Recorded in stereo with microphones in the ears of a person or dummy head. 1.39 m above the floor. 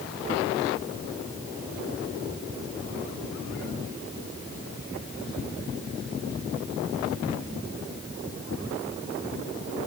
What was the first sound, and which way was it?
Only background noise.